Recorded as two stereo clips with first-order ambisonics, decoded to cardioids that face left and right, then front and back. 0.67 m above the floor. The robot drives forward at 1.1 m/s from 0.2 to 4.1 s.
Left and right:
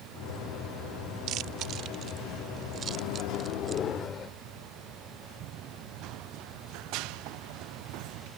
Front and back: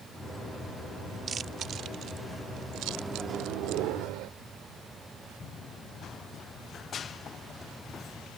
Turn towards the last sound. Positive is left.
turn(degrees=-70)